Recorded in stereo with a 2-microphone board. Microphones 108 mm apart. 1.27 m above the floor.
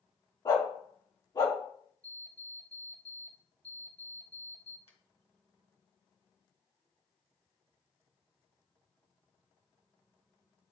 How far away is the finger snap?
About 1.4 m.